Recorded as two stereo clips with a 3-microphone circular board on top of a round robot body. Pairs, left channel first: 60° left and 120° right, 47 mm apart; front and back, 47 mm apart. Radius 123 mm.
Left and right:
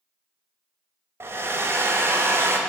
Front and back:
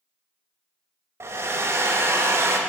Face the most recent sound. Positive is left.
turn(degrees=-155)